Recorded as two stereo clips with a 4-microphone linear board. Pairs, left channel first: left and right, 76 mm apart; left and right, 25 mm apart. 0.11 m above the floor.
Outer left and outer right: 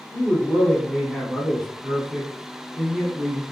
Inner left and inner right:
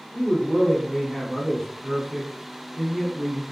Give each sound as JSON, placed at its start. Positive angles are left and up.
{"t": 0.1, "sound": "a man speaking", "side_deg": 0, "distance_m": 1.2}